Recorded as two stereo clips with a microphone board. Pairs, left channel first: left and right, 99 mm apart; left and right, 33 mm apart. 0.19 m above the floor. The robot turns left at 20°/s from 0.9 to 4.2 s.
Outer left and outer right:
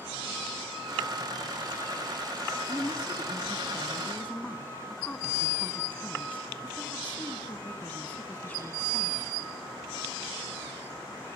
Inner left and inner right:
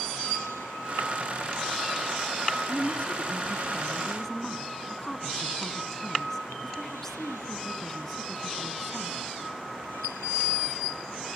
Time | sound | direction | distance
2.7 | a woman speaking | 50° left | 1.5 m